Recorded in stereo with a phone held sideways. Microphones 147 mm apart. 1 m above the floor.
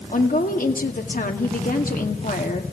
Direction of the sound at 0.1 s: 70° left (ahead or behind).